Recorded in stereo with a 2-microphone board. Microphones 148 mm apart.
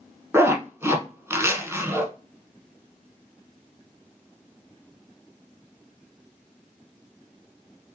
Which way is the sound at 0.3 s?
15° right (ahead or behind).